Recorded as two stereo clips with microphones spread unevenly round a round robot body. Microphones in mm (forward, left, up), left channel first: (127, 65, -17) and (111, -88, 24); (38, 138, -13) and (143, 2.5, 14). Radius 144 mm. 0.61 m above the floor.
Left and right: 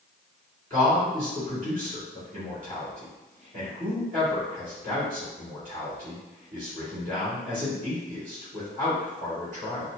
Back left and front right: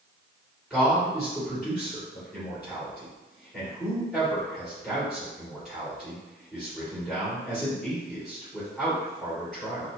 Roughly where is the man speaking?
Behind right.